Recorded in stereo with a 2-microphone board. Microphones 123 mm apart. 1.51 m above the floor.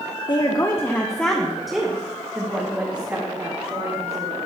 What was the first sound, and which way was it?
A woman speaking, 35° left (ahead or behind).